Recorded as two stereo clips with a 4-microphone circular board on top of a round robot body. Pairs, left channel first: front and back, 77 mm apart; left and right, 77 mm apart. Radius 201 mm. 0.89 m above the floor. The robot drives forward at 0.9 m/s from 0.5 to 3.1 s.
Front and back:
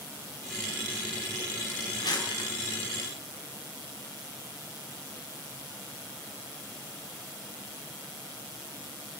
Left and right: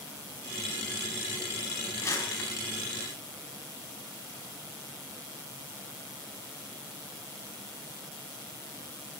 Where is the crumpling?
30° left, 4 m; by 2.5 s 35° left, 3.5 m.